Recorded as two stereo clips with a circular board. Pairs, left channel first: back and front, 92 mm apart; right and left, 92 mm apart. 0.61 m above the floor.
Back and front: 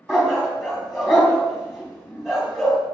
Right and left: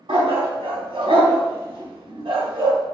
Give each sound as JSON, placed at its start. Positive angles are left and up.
{"t": 0.1, "sound": "a dog barking", "azimuth_deg": 85, "distance_m": 2.0}